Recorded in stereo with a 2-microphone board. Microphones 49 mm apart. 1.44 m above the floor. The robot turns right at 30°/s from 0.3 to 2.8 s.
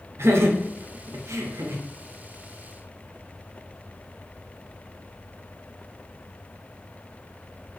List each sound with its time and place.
0.2 s laughter: 65° right (ahead or behind), 0.6 m; by 1.8 s 70° right (ahead or behind), 0.6 m